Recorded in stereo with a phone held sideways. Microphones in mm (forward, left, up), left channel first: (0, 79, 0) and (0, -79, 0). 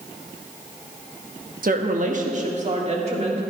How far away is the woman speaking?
About 1.1 m.